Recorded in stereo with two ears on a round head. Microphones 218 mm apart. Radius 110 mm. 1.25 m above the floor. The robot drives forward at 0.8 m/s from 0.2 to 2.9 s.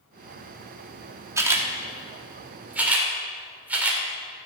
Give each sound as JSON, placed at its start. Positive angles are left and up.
{"t": 1.4, "sound": "a camera shutter", "side_deg": -15, "distance_m": 1.6}